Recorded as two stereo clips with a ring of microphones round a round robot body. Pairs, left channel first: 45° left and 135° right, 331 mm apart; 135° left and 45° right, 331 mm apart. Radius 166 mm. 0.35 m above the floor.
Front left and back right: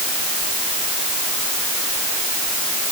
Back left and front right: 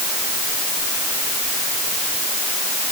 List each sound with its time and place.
Only background noise.